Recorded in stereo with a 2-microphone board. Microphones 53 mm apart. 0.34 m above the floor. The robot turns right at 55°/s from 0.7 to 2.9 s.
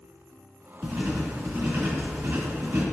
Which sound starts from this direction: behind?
Writing, at 0.8 s.